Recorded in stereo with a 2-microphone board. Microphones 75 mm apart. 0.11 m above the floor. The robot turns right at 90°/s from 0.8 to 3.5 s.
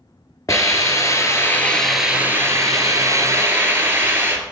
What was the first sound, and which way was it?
A hiss, 75° left.